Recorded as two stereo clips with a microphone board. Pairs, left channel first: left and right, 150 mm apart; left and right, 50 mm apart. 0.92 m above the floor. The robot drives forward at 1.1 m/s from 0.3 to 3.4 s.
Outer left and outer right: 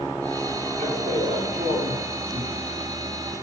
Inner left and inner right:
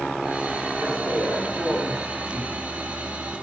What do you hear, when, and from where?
0.8 s a man speaking: 85° right, 5 m; by 2.7 s 70° right (ahead or behind), 5.5 m